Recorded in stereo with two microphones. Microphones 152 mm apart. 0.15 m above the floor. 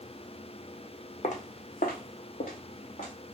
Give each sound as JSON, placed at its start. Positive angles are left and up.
{"t": 1.2, "sound": "footsteps", "side_deg": 55, "distance_m": 0.6}